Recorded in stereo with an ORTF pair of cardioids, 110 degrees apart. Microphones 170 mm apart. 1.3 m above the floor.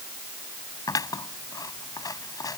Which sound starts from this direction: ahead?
Scissors, at 0.9 s.